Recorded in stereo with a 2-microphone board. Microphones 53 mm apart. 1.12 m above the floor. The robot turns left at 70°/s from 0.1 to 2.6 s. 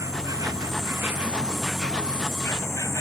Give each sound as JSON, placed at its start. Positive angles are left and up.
{"t": 0.0, "sound": "an insect", "azimuth_deg": -70}